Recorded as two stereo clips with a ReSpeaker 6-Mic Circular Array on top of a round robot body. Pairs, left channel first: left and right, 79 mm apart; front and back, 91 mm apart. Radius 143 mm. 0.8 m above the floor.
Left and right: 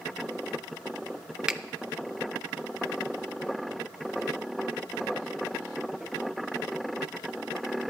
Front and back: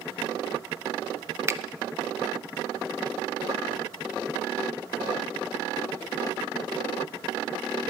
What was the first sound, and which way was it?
A finger snap, 160° right.